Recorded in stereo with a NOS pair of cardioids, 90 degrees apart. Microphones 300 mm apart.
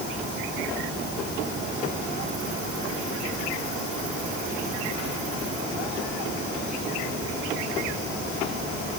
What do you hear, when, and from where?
Only background noise.